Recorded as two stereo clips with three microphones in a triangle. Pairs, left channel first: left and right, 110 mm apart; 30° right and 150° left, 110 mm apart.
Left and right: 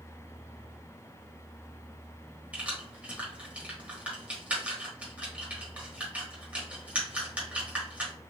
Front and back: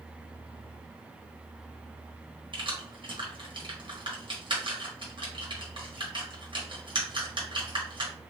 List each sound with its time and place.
2.5 s keys jangling: 170° right, 1.1 m